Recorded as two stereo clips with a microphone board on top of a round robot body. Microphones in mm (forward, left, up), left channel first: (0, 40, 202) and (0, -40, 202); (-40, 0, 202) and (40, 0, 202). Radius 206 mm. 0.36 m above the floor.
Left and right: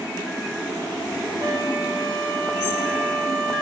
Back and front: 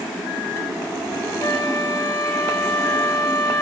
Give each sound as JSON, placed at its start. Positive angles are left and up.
{"t": 1.4, "sound": "a flute", "azimuth_deg": -135, "distance_m": 8.5}